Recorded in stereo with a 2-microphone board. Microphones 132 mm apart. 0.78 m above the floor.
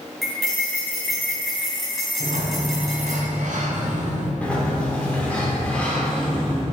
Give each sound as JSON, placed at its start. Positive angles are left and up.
{"t": 0.2, "sound": "cutlery clinking", "side_deg": 0, "distance_m": 3.5}
{"t": 2.2, "sound": "a sliding door", "side_deg": -80, "distance_m": 2.0}
{"t": 4.4, "sound": "a sliding door", "side_deg": 10, "distance_m": 2.5}